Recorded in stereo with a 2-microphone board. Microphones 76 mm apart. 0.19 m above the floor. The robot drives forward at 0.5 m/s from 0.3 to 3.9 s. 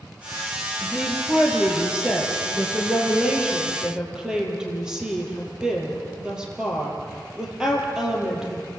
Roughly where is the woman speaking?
Centre.